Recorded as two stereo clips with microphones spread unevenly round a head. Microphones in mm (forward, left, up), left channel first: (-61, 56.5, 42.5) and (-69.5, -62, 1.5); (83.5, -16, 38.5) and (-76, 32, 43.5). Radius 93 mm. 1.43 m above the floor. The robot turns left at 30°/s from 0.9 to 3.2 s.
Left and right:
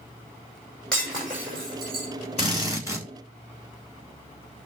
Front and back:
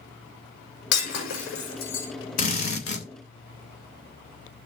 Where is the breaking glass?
5° left, 6 m; by 2.1 s 30° right, 6 m.